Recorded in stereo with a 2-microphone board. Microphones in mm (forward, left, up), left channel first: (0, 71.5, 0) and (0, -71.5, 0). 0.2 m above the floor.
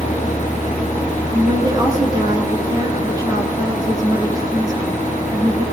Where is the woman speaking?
25° right (ahead or behind), 2 m.